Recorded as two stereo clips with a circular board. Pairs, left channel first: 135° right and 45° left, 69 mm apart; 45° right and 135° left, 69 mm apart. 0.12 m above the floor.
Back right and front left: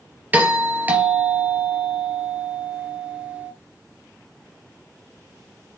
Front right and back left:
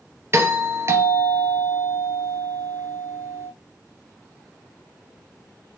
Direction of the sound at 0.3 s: 100° left.